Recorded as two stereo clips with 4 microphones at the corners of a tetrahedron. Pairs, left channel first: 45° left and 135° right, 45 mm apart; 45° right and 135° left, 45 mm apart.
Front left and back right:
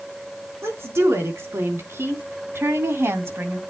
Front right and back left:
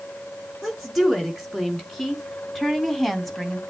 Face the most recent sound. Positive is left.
turn(degrees=-135)